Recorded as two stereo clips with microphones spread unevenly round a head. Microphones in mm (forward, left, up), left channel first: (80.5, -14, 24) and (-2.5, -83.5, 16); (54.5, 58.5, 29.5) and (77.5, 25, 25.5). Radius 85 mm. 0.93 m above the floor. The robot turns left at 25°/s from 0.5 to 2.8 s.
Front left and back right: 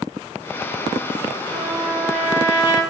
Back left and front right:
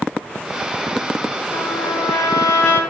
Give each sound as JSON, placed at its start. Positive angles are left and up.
{"t": 1.5, "sound": "a trumpet", "azimuth_deg": 140, "distance_m": 6.5}